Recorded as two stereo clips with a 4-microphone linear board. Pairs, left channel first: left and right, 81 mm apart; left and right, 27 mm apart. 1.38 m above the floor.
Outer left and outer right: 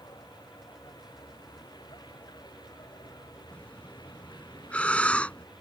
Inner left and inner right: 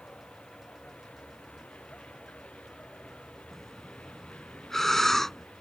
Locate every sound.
0.0 s a vehicle: 60° left (ahead or behind)
3.5 s breathing: 15° left (ahead or behind)